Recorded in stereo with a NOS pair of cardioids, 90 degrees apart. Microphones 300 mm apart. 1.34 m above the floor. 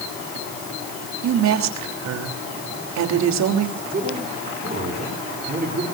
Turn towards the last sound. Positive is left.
turn(degrees=-30)